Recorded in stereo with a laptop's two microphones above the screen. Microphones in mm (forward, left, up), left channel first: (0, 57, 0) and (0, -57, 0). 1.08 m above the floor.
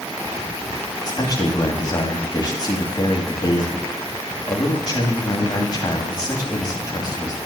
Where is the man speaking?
35° left (ahead or behind), 2.5 m.